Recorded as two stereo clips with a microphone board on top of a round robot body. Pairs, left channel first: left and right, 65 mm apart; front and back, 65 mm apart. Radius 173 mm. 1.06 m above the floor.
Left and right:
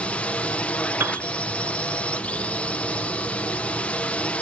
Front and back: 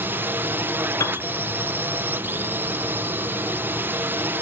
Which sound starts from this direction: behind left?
A drone, at 0.0 s.